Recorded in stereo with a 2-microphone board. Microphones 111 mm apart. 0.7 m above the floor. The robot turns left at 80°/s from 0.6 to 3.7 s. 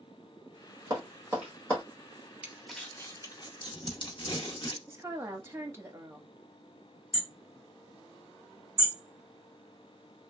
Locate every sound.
0.9 s tapping: 45° right (ahead or behind), 1.8 m; by 1.8 s 20° left (ahead or behind), 1.8 m
2.4 s crumpling: 10° right (ahead or behind), 0.8 m; by 4.8 s 45° left (ahead or behind), 0.8 m
4.9 s a woman speaking: 25° right (ahead or behind), 0.9 m
7.1 s hammering: 30° left (ahead or behind), 2 m